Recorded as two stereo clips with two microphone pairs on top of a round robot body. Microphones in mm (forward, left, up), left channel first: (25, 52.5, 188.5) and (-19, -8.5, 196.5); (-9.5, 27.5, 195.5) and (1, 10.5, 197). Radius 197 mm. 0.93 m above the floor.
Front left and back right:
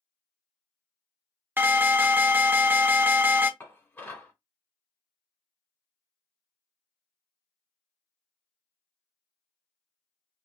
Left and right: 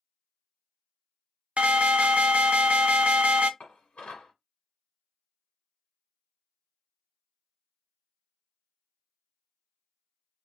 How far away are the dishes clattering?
About 1.4 m.